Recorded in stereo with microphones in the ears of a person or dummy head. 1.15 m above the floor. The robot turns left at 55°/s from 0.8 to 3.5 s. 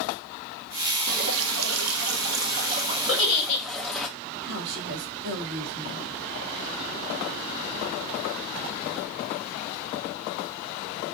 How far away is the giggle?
About 1.5 m.